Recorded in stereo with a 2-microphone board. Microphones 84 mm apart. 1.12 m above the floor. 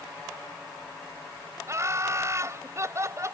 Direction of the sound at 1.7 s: 35° right (ahead or behind).